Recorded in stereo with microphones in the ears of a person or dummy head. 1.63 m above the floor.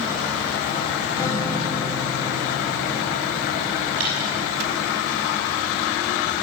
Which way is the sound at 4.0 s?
80° right.